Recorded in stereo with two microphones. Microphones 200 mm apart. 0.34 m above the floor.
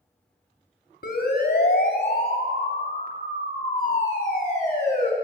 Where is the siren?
55° left (ahead or behind), 2.5 m; by 5.1 s 35° left (ahead or behind), 4.5 m.